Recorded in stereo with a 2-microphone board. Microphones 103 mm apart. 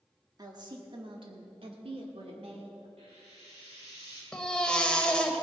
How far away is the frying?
About 4.5 m.